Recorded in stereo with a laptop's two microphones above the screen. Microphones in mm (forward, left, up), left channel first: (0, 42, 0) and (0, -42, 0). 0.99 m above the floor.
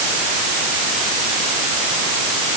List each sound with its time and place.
Only background noise.